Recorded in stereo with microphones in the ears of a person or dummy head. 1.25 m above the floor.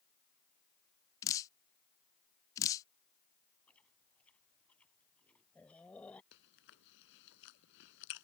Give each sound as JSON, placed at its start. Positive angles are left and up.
{"t": 1.2, "sound": "dripping", "side_deg": 20}
{"t": 3.7, "sound": "chewing", "side_deg": 10}
{"t": 6.3, "sound": "chewing", "side_deg": 65}